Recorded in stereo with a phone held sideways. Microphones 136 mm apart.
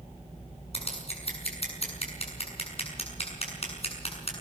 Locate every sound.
0.7 s scissors: 50° left (ahead or behind), 7 m